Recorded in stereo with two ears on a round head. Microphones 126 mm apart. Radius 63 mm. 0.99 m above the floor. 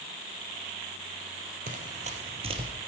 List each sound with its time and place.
1.7 s running footsteps: 60° right (ahead or behind), 1.8 m; by 2.7 s 35° right (ahead or behind), 1.7 m